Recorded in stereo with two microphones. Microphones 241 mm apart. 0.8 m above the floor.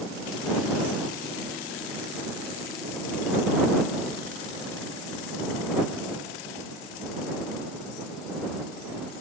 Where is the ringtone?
I don't hear a ringtone.